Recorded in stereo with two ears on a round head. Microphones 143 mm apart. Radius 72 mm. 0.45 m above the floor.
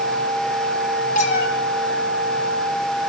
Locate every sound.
1.1 s a cat meowing: 45° left (ahead or behind), 3.5 m